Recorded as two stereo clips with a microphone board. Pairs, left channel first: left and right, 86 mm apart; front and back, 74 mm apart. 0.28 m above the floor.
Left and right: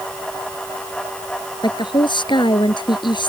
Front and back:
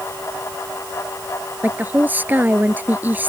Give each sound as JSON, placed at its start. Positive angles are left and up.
{"t": 1.6, "sound": "a woman speaking", "azimuth_deg": 115}